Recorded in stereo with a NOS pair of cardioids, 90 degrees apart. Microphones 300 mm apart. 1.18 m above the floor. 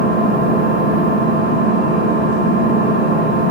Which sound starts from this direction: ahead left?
An engine running, at 0.0 s.